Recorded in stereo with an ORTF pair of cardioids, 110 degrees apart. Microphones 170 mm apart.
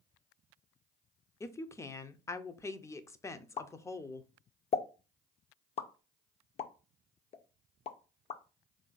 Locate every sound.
1.4 s a woman speaking: 20° left, 0.5 m
3.6 s a pop: 40° left, 0.5 m